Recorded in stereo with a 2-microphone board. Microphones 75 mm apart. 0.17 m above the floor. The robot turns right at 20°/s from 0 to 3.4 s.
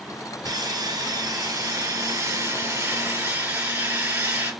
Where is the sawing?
90° right, 2.5 m; by 4.5 s 30° right, 2.5 m.